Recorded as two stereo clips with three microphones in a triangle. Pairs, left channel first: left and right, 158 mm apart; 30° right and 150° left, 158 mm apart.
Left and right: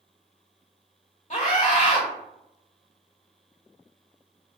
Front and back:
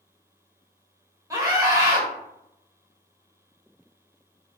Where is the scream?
90° left, 1.1 m.